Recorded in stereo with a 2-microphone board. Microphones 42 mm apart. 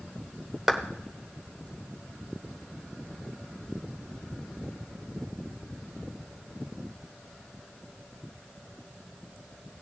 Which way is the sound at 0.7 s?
5° right (ahead or behind).